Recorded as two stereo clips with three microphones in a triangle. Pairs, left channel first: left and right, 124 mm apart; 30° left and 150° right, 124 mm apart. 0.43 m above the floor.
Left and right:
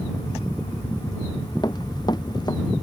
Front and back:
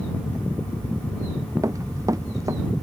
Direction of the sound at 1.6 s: 145° left.